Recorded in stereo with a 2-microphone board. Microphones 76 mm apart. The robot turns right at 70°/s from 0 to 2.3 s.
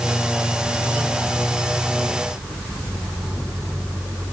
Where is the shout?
No shout in this recording.